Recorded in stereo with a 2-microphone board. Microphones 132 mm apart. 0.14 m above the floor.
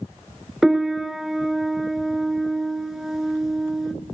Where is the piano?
5° right (ahead or behind), 0.5 m.